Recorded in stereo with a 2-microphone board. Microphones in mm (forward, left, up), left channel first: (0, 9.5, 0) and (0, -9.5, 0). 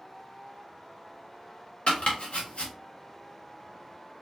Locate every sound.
1.9 s chopping: 70° left (ahead or behind), 1.6 m